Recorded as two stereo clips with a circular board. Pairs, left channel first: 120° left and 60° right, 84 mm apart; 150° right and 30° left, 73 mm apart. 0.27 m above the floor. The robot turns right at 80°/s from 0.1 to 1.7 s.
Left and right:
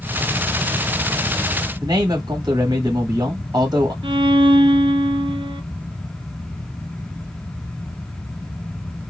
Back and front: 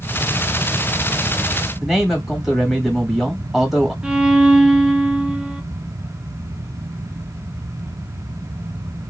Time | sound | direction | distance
1.8 | a man speaking | 65° right | 1.2 m
4.0 | a violin | 50° right | 0.6 m